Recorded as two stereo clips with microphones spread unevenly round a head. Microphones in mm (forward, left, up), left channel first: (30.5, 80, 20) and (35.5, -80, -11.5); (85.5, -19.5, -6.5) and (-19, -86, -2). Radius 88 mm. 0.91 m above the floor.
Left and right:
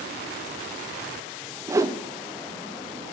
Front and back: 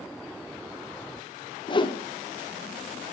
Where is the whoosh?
20° right, 0.5 m.